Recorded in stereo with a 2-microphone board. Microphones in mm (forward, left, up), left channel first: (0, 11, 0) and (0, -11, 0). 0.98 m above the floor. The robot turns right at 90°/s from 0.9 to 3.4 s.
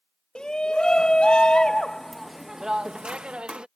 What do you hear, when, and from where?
0.3 s a shout: 55° left; by 3.7 s 80° right